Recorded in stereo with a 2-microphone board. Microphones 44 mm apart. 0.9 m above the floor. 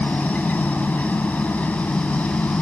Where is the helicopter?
40° left (ahead or behind).